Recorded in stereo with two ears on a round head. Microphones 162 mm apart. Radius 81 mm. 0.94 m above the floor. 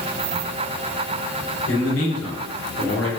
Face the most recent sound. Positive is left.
turn(degrees=80)